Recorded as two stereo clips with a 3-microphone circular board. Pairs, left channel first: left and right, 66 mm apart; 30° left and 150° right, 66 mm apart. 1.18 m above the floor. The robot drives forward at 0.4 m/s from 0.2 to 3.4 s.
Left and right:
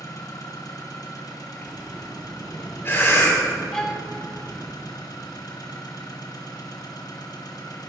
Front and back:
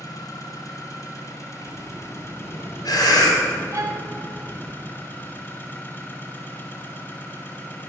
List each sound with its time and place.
0.0 s an engine running: 60° left, 2.5 m; by 7.9 s 90° left, 2.5 m
1.6 s breathing: 30° left, 3.5 m; by 4.6 s 35° left, 3 m
3.7 s a violin: 170° left, 1.4 m